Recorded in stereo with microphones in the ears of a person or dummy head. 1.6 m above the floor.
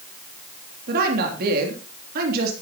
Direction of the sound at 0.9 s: 60° right (ahead or behind).